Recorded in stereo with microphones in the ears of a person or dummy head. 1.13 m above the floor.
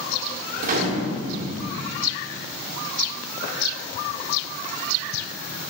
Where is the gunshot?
40° right (ahead or behind), 1.2 m.